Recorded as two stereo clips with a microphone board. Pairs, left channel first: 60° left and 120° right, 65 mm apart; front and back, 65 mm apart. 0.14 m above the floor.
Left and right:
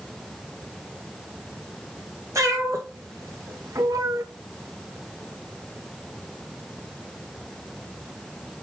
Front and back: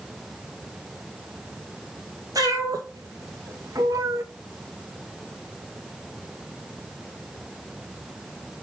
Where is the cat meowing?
160° right, 3 m; by 4.2 s 140° right, 0.7 m.